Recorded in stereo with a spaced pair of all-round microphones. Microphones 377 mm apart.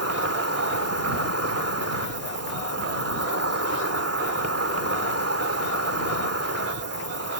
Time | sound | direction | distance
0.0 | an insect | 40° right (ahead or behind) | ?